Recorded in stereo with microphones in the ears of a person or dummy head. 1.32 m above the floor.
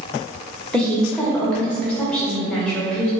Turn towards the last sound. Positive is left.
turn(degrees=0)  # may be behind; listen again after turning